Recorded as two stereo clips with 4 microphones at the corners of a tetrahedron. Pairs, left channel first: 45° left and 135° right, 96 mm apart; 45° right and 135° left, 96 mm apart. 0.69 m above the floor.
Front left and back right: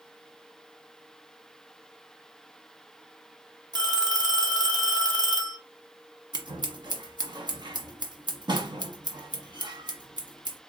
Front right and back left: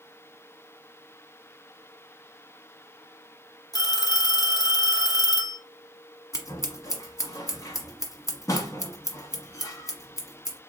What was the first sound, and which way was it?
A phone ringing, 90° right.